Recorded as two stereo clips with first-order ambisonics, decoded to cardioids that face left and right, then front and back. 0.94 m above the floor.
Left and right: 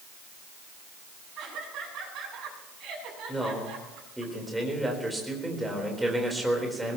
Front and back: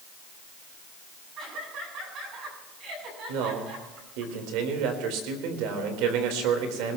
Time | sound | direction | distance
1.4 | laughter | 135° right | 9 m
3.3 | a man speaking | 175° right | 4 m